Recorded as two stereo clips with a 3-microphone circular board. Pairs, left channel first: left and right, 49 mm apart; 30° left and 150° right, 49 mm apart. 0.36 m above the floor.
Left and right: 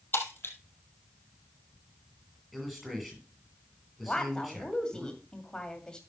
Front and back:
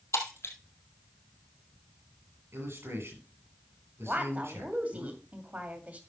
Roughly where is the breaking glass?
Ahead left.